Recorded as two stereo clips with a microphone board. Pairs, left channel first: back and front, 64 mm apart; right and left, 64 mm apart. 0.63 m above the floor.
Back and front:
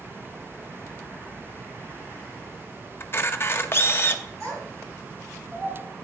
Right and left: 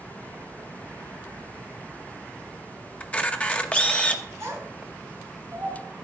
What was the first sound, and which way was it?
A camera shutter, 150° right.